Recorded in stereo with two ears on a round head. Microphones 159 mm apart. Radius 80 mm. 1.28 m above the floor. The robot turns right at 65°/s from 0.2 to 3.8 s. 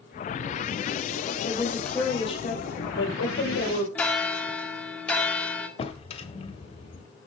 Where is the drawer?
35° left (ahead or behind), 1.6 m.